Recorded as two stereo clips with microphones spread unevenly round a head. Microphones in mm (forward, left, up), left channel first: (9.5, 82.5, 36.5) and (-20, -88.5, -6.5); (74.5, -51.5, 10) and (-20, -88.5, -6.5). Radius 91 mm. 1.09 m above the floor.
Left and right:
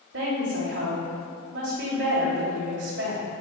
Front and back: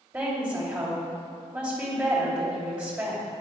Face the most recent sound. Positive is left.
turn(degrees=-95)